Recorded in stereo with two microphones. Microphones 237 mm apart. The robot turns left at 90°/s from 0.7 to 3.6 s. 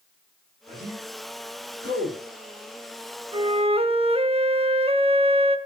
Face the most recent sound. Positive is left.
turn(degrees=-25)  # may be behind; listen again after turning